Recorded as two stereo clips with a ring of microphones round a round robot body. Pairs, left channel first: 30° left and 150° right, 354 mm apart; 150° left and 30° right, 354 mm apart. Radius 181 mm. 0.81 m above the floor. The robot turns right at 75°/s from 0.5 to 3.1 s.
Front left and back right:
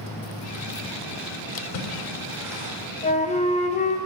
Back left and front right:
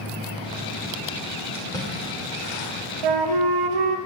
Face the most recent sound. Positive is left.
turn(degrees=-40)